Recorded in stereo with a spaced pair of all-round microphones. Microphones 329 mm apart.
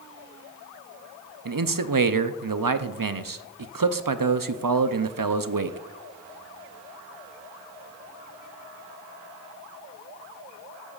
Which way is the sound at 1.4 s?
80° right.